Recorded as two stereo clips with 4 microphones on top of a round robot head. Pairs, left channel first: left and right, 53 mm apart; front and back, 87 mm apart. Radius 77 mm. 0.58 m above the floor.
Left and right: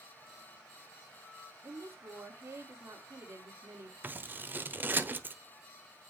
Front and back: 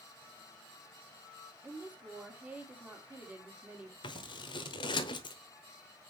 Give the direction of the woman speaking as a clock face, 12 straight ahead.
4 o'clock.